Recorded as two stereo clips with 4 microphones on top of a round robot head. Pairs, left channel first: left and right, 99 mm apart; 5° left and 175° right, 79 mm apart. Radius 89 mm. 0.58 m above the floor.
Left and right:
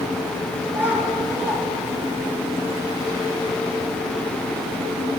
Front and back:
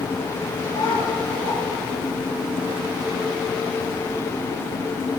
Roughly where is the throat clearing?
I don't hear throat clearing.